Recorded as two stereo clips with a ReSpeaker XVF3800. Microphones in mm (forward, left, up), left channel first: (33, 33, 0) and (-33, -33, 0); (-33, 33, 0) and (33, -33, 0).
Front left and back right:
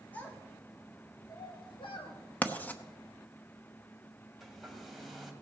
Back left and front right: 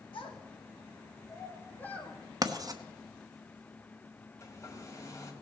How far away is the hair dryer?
About 1.7 m.